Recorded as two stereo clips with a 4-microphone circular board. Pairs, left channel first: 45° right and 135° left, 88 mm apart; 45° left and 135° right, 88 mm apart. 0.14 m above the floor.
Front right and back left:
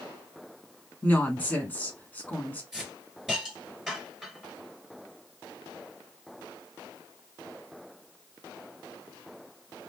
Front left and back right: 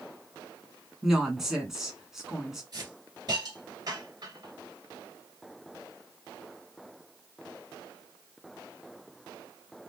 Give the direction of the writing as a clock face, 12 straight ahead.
I don't hear writing.